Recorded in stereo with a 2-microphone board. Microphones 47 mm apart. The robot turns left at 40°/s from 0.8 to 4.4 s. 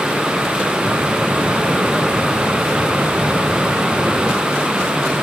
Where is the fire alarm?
I don't hear a fire alarm.